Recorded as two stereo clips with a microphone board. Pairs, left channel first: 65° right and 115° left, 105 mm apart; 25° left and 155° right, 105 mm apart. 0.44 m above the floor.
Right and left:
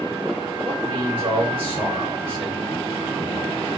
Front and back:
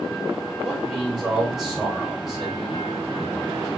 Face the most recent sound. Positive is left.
turn(degrees=120)